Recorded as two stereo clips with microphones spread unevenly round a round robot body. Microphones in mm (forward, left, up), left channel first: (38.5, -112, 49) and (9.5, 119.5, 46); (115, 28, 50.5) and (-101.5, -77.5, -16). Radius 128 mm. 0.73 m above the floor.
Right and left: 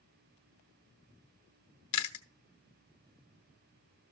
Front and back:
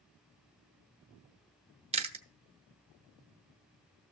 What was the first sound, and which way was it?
Chewing, 85° right.